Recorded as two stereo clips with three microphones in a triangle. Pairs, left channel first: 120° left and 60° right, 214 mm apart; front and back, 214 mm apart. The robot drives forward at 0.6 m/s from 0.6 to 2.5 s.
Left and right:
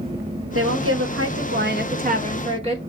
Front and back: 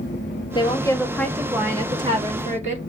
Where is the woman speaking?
70° right, 1.1 m; by 2.8 s 125° right, 1.3 m.